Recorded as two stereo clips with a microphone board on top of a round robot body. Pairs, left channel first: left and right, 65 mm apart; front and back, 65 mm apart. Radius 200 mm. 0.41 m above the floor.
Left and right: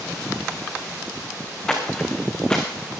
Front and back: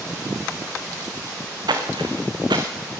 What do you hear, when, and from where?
1.7 s footsteps: 170° left, 2.0 m